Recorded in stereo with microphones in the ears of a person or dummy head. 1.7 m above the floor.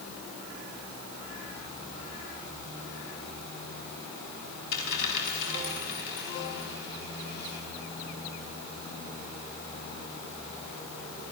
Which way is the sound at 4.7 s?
65° left (ahead or behind).